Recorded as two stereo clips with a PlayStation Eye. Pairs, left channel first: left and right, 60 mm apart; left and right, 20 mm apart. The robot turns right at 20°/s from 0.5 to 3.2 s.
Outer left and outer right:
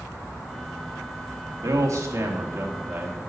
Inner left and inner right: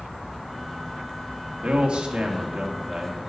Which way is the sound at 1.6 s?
60° right.